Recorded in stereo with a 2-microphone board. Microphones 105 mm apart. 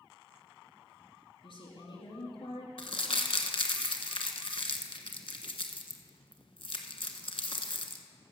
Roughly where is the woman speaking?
Left.